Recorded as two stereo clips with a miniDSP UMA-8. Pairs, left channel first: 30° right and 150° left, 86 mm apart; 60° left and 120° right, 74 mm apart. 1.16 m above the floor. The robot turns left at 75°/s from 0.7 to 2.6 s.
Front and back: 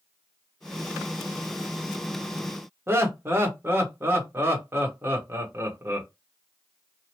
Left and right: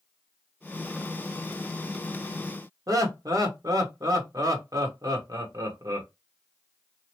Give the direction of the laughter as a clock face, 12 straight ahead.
5 o'clock.